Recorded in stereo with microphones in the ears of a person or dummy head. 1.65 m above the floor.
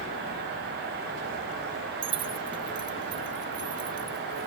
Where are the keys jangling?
30° right (ahead or behind); by 4.5 s 25° right (ahead or behind).